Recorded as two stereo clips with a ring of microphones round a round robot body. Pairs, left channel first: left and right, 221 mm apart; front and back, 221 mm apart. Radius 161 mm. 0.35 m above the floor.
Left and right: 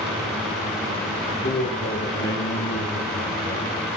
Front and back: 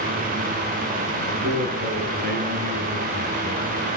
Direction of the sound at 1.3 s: 145° left.